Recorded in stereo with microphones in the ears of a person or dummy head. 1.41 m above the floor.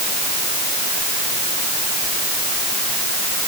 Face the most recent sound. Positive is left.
No sound to turn to.